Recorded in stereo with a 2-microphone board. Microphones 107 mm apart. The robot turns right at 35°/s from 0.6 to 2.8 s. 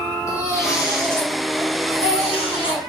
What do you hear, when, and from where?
0.3 s a baby crying: 30° left, 2.0 m; by 2.8 s 110° left, 2.0 m